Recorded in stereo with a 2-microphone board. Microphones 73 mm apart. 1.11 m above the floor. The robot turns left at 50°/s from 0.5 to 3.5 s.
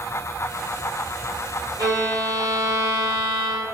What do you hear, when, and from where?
1.8 s a violin: 85° right, 1.7 m; by 3.6 s 170° right, 1.7 m